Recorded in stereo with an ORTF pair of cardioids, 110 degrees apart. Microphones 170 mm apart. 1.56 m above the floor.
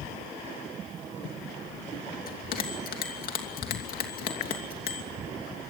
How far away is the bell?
About 3 m.